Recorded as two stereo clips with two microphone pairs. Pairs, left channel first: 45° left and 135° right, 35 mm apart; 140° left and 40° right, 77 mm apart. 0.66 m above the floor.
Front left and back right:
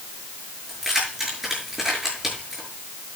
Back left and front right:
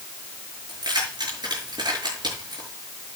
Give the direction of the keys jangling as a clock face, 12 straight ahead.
2 o'clock.